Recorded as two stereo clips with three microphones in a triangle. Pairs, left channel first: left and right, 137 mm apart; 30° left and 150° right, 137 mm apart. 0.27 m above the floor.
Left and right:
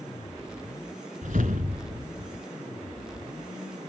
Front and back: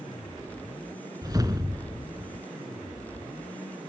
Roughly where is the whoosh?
Right.